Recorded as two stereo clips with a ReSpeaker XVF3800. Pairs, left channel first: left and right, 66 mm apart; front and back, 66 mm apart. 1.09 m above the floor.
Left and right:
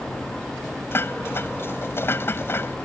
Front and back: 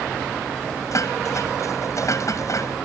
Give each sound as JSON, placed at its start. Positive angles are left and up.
{"t": 0.9, "sound": "dishes clattering", "azimuth_deg": 35}